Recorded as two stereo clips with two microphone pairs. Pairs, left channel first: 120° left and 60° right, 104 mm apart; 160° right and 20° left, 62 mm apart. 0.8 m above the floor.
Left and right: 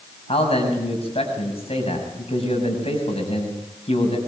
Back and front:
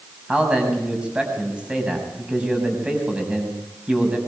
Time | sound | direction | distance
0.3 | a man speaking | 95° left | 6.5 m